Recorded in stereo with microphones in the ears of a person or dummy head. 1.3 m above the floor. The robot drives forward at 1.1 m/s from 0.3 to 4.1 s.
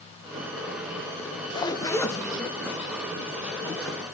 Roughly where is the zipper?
Left.